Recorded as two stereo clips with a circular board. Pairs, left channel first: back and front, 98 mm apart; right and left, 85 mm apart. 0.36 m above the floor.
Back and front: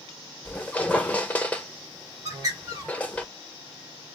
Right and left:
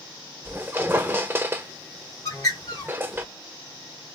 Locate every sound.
0.5 s a squeak: 120° left, 0.6 m
2.2 s a bird: 50° right, 1.7 m